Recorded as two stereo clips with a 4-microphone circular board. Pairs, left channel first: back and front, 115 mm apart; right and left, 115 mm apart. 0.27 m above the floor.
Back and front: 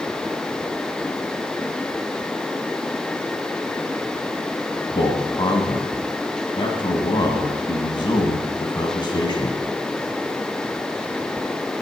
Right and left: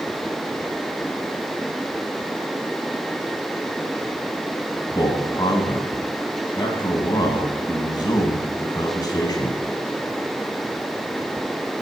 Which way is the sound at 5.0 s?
140° right.